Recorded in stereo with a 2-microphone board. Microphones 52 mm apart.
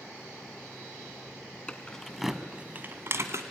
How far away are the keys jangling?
About 1.8 m.